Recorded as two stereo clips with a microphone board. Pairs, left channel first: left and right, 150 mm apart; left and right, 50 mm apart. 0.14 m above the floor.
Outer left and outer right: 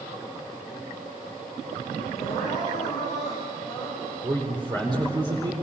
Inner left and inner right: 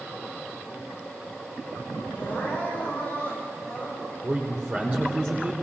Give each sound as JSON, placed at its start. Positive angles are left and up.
{"t": 2.1, "sound": "crying", "side_deg": 25, "distance_m": 8.0}
{"t": 4.2, "sound": "a man speaking", "side_deg": -30, "distance_m": 4.0}